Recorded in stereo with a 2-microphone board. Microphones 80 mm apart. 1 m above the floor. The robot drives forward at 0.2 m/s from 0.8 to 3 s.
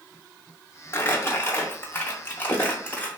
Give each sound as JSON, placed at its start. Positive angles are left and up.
{"t": 0.9, "sound": "crumpling", "side_deg": 35, "distance_m": 0.6}